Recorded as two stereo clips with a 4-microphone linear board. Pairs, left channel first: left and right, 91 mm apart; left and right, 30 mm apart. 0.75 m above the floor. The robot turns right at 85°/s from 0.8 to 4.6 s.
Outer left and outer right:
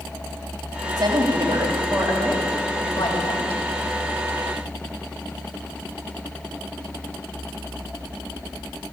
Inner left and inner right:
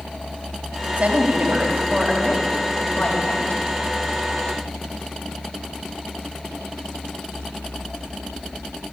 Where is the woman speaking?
140° right, 4 m; by 3.7 s 95° left, 4 m.